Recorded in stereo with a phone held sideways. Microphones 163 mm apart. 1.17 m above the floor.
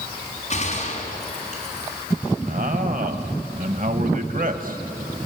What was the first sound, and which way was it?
A gunshot, 45° left (ahead or behind).